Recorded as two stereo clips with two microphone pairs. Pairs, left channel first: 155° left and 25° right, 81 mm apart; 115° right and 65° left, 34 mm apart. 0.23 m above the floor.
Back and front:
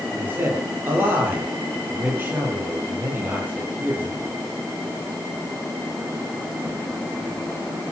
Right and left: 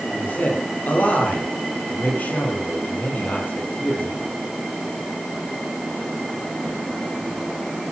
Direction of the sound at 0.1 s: 90° right.